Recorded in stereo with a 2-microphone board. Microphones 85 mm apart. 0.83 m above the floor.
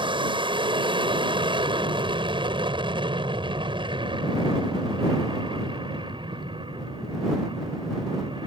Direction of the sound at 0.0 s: 70° right (ahead or behind).